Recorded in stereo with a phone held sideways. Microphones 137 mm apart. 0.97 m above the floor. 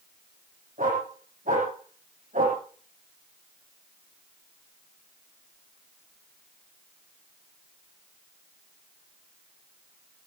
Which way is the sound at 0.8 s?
80° right.